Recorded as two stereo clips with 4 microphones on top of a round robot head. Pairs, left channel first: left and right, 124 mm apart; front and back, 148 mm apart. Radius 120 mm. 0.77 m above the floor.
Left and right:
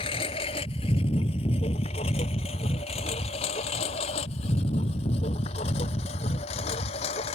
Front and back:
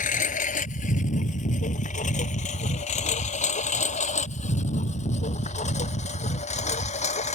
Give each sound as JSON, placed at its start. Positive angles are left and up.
{"t": 0.0, "sound": "a lawn mower", "azimuth_deg": 30}